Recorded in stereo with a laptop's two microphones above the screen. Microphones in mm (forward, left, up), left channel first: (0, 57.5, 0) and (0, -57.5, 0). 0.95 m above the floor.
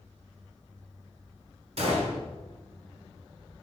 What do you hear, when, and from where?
1.8 s a gunshot: 60° right (ahead or behind), 2.5 m